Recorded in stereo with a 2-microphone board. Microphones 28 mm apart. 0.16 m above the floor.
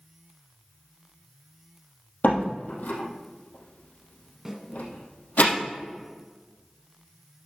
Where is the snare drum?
10° right (ahead or behind), 1.9 m.